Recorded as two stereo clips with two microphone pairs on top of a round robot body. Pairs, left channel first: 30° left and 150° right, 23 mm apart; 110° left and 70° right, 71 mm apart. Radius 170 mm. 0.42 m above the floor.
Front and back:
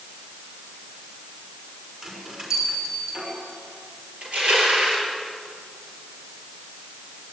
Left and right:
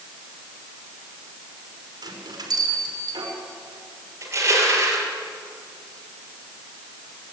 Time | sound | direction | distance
2.0 | a bell | 90° right | 5.5 m
4.2 | crushing | 120° right | 6.5 m